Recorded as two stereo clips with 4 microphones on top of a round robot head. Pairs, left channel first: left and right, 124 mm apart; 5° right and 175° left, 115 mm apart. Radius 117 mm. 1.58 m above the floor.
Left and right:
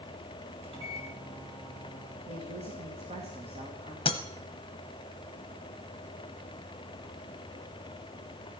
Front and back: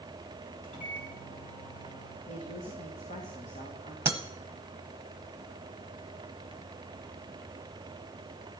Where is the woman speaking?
40° right, 2.0 m.